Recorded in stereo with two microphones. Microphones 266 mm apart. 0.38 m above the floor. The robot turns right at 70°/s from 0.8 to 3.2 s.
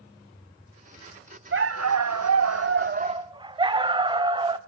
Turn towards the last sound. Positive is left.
turn(degrees=-15)